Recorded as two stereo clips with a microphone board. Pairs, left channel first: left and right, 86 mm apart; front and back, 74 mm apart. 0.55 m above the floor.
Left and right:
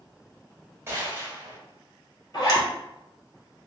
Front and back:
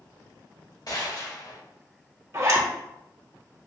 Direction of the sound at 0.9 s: 30° right.